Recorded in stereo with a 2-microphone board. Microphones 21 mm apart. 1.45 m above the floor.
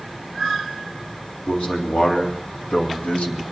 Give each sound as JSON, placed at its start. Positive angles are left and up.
{"t": 1.5, "sound": "a man speaking", "side_deg": 85, "distance_m": 3.5}